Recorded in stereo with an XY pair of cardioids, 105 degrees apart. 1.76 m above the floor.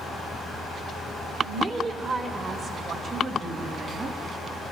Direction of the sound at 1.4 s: 55° right.